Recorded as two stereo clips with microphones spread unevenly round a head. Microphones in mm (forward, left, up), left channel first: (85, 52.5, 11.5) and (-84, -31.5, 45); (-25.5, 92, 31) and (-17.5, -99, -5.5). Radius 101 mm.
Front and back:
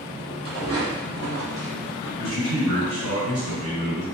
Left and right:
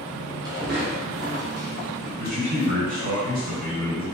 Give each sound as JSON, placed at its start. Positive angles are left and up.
{"t": 0.5, "sound": "footsteps", "azimuth_deg": -160, "distance_m": 1.4}
{"t": 2.2, "sound": "a man speaking", "azimuth_deg": -135, "distance_m": 2.0}